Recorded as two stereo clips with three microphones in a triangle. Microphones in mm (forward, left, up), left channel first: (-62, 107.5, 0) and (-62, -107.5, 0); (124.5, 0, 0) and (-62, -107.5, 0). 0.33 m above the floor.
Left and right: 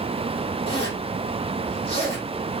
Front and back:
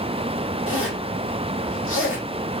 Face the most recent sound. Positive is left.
turn(degrees=25)